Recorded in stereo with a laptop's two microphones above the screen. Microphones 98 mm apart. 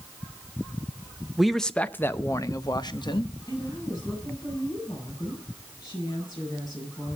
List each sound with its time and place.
1.4 s a man speaking: 5° right (ahead or behind), 0.8 m; by 3.3 s 55° left (ahead or behind), 1.3 m
3.5 s a woman speaking: 35° left (ahead or behind), 8 m